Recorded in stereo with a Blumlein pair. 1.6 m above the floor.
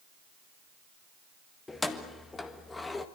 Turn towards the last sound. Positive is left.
turn(degrees=10)